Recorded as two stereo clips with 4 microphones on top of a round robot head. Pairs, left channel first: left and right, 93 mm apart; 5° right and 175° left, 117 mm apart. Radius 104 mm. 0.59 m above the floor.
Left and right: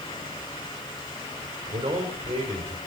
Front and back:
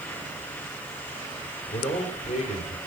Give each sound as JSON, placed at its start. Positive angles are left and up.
{"t": 1.7, "sound": "a man speaking", "azimuth_deg": -30, "distance_m": 2.0}